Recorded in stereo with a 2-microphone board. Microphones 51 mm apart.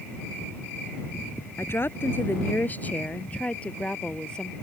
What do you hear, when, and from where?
1.6 s a woman speaking: 50° left (ahead or behind); by 4.5 s 15° left (ahead or behind)